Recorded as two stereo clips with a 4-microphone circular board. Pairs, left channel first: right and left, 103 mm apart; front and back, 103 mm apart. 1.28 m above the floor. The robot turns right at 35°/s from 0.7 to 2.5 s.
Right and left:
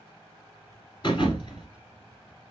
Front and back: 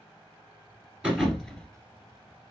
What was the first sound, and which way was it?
A thud, 95° right.